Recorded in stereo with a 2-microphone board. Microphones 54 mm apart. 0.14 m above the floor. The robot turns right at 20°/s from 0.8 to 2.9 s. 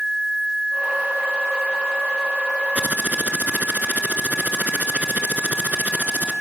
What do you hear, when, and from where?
2.8 s typing on a keyboard: 30° right (ahead or behind), 1.8 m